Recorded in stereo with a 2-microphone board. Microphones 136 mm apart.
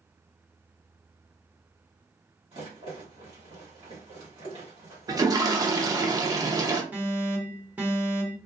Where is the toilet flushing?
25° right (ahead or behind), 0.5 m.